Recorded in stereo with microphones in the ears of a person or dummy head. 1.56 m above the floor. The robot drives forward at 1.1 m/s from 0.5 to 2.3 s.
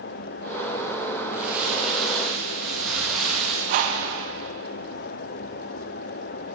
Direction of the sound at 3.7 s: 40° right (ahead or behind).